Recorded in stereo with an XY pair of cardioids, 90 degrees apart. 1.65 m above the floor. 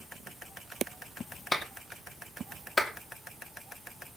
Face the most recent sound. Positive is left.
turn(degrees=25)